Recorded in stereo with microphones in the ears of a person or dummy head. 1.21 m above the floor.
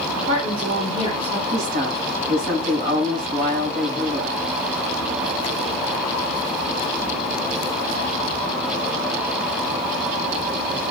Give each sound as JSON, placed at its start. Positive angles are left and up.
{"t": 0.2, "sound": "a woman speaking", "side_deg": -35, "distance_m": 3.0}
{"t": 1.5, "sound": "a woman speaking", "side_deg": -60, "distance_m": 5.5}